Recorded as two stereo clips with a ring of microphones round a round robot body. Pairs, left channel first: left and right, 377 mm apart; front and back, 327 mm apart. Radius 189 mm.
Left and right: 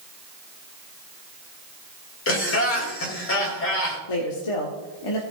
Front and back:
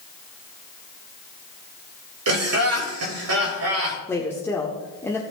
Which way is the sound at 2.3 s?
145° left.